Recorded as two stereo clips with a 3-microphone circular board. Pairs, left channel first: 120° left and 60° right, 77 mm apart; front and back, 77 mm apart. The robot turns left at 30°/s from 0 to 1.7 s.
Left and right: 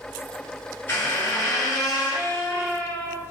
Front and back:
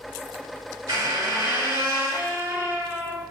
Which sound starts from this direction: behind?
A squeak, at 0.9 s.